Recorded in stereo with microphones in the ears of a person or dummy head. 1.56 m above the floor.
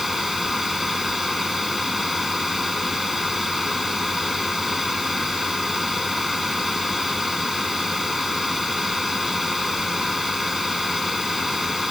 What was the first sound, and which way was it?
A fan, centre (ahead or behind).